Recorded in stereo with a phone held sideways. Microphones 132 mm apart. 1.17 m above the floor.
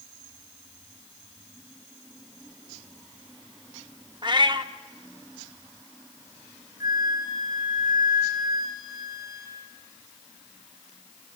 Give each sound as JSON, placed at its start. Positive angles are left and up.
{"t": 4.2, "sound": "a cat meowing", "side_deg": -35, "distance_m": 1.0}
{"t": 6.8, "sound": "a flute", "side_deg": -30, "distance_m": 4.5}